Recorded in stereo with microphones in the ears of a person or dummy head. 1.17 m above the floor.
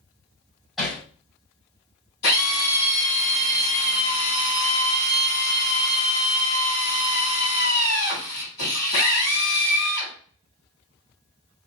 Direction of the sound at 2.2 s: 70° left (ahead or behind).